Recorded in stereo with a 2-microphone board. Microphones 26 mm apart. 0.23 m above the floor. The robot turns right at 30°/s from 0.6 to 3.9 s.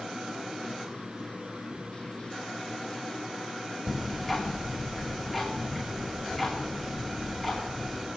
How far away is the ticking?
About 5 m.